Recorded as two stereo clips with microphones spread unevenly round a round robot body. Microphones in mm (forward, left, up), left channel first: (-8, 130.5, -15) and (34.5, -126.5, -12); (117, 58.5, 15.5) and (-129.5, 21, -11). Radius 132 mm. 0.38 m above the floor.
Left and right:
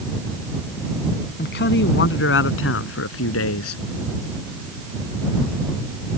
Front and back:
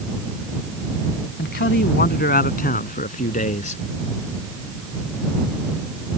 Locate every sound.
1.4 s a man speaking: 50° left; by 3.8 s 70° left